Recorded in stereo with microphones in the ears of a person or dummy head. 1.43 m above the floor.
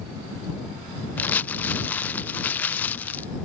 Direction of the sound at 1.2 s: 10° left (ahead or behind).